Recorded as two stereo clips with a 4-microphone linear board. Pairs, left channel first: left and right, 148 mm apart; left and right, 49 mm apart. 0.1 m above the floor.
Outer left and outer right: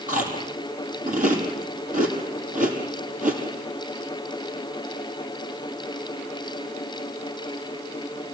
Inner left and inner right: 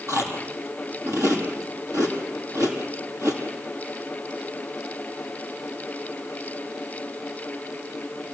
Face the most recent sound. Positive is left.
turn(degrees=-65)  # may be behind; listen again after turning